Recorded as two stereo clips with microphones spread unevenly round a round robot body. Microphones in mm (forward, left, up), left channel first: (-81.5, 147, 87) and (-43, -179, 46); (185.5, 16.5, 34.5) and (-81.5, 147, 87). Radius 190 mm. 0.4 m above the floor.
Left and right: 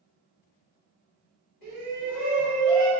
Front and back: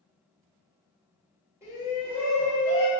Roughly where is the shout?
Left.